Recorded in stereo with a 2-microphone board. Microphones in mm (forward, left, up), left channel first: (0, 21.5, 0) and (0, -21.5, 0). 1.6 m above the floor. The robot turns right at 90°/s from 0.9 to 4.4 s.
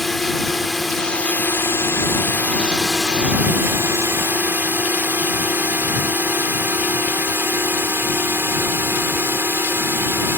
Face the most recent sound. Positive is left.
turn(degrees=-65)  # may be behind; listen again after turning